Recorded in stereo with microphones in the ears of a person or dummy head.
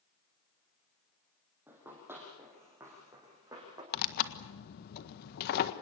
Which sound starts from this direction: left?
Tearing paper, at 3.9 s.